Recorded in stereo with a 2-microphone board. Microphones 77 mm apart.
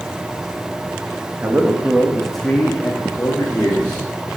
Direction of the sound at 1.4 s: 25° right (ahead or behind).